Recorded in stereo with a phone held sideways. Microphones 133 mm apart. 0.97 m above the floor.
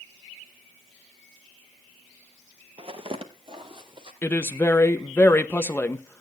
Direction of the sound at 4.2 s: 15° left (ahead or behind).